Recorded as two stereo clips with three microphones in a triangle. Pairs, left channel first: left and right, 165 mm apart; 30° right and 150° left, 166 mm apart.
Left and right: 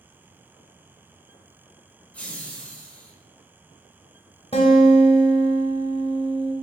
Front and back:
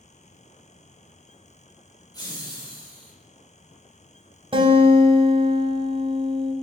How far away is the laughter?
About 1.0 m.